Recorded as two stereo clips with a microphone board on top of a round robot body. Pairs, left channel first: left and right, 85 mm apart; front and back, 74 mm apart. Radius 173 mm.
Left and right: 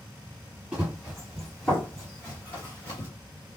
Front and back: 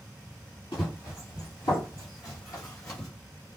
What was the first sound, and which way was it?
Running footsteps, 10° right.